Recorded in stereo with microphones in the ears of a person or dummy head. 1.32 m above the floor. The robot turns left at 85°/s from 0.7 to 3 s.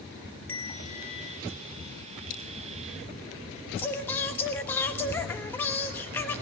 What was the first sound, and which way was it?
A bell, 170° left.